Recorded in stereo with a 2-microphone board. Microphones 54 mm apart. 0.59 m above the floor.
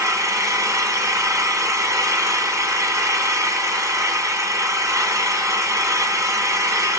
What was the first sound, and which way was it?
An engine running, 80° right.